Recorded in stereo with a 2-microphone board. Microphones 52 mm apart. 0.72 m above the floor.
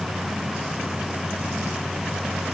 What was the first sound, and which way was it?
Only background noise.